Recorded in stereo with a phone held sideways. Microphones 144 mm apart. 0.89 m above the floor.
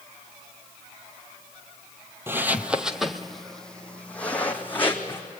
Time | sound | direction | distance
2.3 | footsteps | 15° right (ahead or behind) | 1.0 m